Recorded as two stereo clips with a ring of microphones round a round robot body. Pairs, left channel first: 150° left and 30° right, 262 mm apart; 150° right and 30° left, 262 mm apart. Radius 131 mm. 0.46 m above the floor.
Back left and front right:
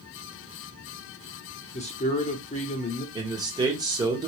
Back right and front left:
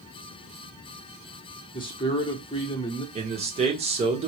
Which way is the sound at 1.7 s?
165° left.